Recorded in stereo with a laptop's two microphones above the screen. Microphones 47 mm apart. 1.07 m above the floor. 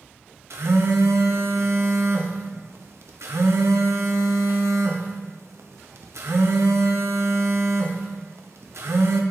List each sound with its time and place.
0.5 s a phone buzzing: 75° right (ahead or behind), 0.6 m